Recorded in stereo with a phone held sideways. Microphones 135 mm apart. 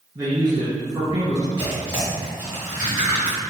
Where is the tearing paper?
30° right (ahead or behind), 1.6 m.